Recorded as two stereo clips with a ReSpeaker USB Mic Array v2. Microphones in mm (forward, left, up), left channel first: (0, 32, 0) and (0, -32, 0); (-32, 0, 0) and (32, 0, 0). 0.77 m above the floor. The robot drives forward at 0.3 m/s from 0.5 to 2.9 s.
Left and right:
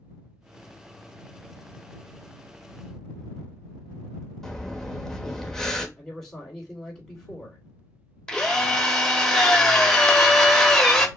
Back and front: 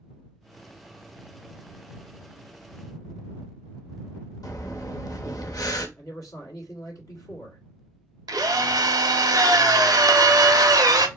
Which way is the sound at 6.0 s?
170° left.